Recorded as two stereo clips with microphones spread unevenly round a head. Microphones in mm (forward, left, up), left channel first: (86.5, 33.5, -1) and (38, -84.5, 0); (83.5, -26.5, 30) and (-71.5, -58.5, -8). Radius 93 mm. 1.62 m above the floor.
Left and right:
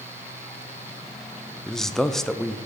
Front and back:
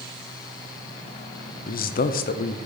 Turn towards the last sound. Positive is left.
turn(degrees=-20)